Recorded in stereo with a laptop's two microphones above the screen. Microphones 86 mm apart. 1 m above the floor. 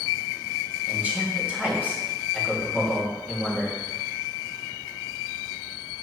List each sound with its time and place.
0.9 s a man speaking: 15° right (ahead or behind), 1.9 m